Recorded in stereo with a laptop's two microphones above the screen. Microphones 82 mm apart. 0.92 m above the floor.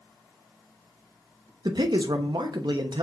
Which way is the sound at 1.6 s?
60° right (ahead or behind).